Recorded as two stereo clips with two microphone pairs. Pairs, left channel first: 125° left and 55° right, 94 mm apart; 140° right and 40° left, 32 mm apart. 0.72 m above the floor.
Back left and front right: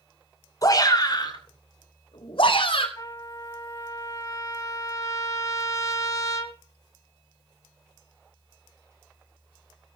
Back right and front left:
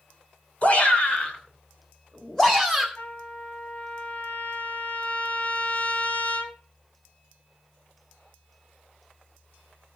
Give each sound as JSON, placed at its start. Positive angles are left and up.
{"t": 0.6, "sound": "a shout", "azimuth_deg": 170, "distance_m": 3.0}
{"t": 3.0, "sound": "a trumpet", "azimuth_deg": 175, "distance_m": 2.0}